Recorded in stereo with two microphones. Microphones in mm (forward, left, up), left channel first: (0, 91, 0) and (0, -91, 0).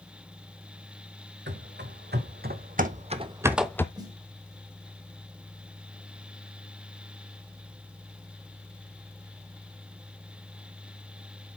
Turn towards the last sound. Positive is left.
turn(degrees=-25)  # may be behind; listen again after turning